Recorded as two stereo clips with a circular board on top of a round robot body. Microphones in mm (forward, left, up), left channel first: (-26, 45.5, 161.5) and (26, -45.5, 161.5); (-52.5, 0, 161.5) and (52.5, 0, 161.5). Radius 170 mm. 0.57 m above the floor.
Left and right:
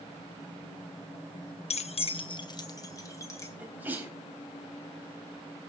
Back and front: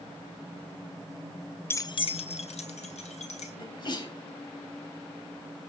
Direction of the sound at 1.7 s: 110° left.